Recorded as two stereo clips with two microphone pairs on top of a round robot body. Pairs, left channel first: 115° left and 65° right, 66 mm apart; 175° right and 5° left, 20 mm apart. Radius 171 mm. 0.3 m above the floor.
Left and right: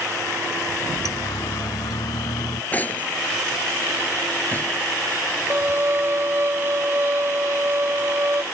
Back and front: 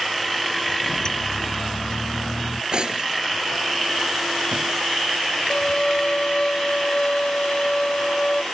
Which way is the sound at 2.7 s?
50° left.